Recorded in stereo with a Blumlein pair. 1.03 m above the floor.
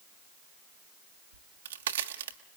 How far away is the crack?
About 1.6 m.